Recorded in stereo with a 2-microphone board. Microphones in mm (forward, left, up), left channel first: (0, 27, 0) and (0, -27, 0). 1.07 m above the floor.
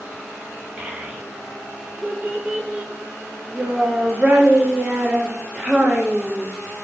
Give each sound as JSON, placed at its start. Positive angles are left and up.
{"t": 0.8, "sound": "a child speaking", "side_deg": -25, "distance_m": 0.8}